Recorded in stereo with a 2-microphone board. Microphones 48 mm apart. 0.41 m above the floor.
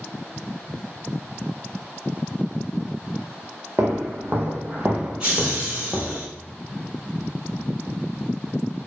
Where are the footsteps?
65° right (ahead or behind), 0.9 m; by 6.2 s 35° left (ahead or behind), 0.7 m.